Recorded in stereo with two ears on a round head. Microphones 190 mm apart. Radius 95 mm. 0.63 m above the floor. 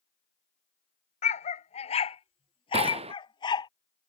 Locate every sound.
1.2 s a dog barking: 35° left (ahead or behind); by 3.7 s 20° left (ahead or behind)
2.7 s a gunshot: 30° right (ahead or behind)